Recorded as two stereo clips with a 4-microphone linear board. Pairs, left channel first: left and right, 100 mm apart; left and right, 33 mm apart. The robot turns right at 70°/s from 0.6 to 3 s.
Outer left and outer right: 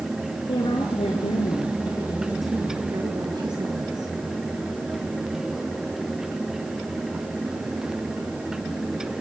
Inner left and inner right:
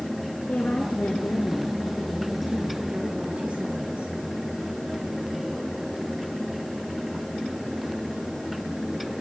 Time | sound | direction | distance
0.5 | a woman speaking | 55° left | 5.5 m